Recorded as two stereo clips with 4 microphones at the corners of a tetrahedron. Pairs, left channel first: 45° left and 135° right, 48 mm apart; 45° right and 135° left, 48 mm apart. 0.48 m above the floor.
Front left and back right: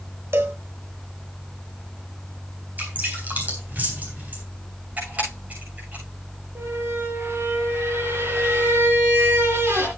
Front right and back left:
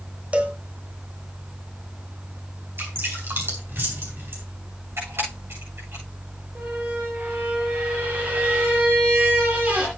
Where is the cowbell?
170° right, 1.3 m.